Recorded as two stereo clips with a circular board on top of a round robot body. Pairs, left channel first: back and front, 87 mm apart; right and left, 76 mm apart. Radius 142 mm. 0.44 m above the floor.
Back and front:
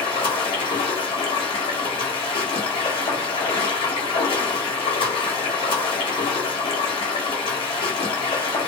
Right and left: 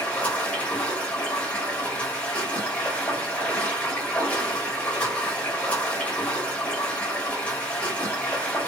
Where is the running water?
160° right, 1.1 m.